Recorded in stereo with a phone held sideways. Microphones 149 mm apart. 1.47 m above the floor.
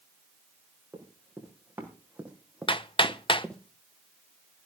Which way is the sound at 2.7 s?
35° left (ahead or behind).